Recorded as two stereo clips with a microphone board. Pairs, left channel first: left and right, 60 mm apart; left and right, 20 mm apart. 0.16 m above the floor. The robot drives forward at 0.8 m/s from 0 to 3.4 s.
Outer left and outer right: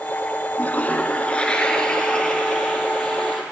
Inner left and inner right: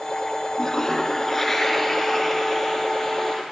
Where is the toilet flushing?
30° left (ahead or behind), 0.6 m; by 3.4 s 5° left (ahead or behind), 2.5 m.